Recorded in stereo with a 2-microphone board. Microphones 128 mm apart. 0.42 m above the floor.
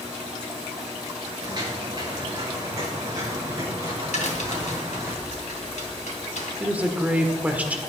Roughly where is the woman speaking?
Centre.